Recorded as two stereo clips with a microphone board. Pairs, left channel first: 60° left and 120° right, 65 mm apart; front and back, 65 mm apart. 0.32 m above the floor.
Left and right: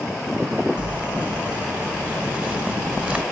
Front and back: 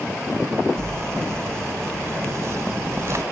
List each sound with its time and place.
0.8 s crumpling: 175° left, 0.9 m